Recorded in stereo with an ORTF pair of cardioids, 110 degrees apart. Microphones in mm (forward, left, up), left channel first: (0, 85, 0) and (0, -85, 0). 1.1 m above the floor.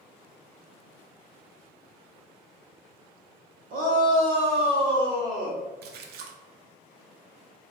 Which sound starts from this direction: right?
A splash, at 5.8 s.